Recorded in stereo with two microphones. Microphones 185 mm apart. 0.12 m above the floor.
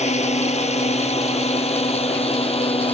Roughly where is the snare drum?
I don't hear a snare drum.